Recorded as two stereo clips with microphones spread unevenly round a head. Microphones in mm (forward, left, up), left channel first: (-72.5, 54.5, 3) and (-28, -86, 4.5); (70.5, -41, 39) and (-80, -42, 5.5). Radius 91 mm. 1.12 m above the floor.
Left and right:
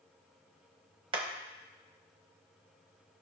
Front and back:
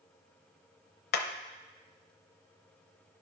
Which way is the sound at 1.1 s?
10° right.